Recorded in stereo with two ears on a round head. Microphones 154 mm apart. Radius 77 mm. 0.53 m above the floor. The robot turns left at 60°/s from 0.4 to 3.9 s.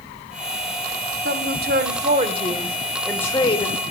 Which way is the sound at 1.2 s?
80° right.